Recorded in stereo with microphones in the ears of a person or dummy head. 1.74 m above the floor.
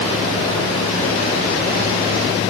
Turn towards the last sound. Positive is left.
No sound to turn to.